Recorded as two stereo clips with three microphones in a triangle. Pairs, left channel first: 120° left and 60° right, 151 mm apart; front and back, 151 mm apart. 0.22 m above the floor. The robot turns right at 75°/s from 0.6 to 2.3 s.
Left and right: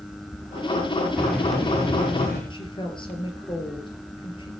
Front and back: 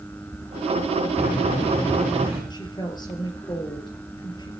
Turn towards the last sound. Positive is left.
turn(degrees=60)